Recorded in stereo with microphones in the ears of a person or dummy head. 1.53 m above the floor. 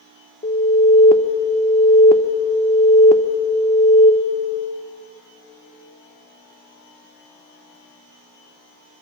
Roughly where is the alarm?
Left.